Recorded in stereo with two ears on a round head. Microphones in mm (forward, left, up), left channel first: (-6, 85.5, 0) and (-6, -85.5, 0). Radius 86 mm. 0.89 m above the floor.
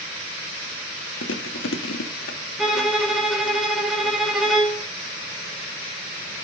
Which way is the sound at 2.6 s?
Centre (ahead or behind).